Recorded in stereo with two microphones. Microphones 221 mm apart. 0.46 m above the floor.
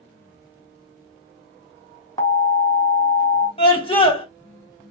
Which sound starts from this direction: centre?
An alarm, at 2.2 s.